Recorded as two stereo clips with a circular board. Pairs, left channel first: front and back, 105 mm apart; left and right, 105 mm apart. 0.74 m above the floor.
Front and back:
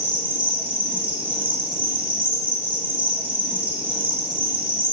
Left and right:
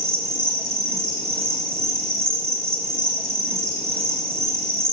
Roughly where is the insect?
Behind.